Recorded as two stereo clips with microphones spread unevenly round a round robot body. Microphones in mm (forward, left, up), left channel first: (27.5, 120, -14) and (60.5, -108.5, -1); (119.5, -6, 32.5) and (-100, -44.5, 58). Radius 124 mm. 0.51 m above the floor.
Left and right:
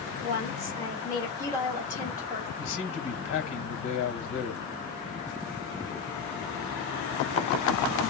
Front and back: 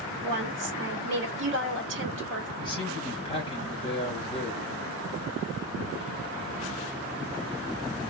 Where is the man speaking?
75° left, 2 m.